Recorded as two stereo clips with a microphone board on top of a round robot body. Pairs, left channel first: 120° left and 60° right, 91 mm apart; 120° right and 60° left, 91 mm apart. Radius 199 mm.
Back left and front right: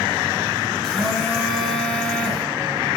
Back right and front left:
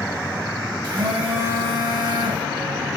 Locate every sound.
0.8 s a phone buzzing: 30° left, 3 m